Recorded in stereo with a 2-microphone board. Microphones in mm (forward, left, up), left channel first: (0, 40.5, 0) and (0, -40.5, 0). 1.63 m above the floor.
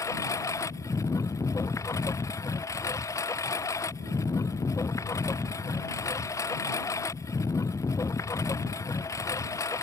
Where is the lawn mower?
40° left (ahead or behind).